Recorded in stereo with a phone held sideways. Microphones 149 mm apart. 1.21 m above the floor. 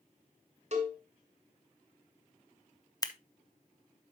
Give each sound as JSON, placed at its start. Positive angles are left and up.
{"t": 0.7, "sound": "a cowbell", "side_deg": -50, "distance_m": 2.0}
{"t": 3.0, "sound": "scissors", "side_deg": 25, "distance_m": 0.6}